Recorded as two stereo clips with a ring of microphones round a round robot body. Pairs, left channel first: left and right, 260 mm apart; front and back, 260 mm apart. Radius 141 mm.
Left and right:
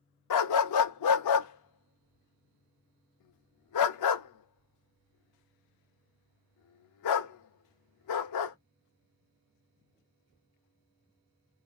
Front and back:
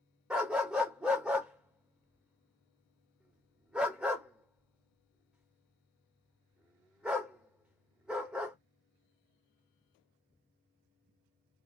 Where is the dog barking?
95° left, 0.7 m.